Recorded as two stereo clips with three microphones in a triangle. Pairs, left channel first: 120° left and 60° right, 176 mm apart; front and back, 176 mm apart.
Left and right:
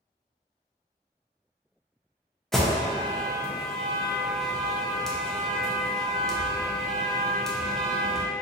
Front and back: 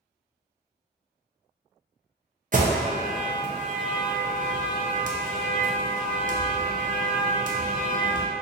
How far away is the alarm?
About 0.5 m.